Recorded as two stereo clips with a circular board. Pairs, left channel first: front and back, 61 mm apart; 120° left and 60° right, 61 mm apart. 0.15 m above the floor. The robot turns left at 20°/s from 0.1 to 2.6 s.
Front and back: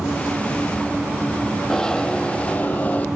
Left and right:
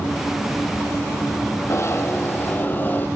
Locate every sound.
1.7 s a zipper: 85° left, 1.1 m; by 3.1 s 65° left, 1.1 m